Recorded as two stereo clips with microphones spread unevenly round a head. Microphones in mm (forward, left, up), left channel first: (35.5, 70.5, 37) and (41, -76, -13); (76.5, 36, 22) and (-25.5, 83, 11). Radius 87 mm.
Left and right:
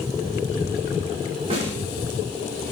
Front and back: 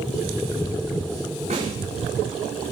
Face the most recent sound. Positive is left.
turn(degrees=-150)